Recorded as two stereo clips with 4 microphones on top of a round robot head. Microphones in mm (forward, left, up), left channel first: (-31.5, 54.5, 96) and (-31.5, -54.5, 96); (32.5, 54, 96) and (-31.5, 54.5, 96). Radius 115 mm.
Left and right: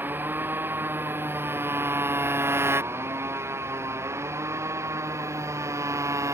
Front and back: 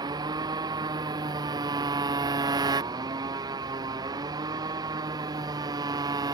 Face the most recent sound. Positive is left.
turn(degrees=-155)